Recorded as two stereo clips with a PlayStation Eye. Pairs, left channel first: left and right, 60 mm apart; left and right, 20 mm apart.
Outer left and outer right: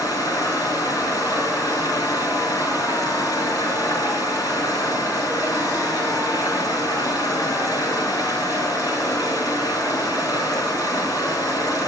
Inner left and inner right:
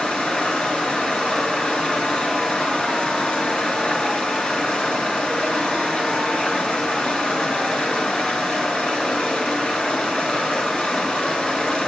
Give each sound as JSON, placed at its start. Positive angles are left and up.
{"t": 0.0, "sound": "running water", "side_deg": 85, "distance_m": 8.0}